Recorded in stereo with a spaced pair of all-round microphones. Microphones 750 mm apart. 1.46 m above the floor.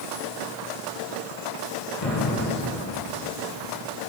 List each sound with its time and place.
2.0 s an explosion: 50° left (ahead or behind), 1.6 m